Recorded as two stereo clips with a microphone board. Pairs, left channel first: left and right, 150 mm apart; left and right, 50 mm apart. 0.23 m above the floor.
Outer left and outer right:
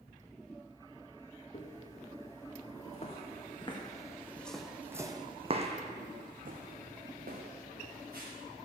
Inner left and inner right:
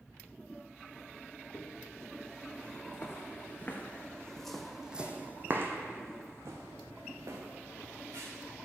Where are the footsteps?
55° left (ahead or behind), 1.9 m; by 8.3 s 85° right, 2.0 m.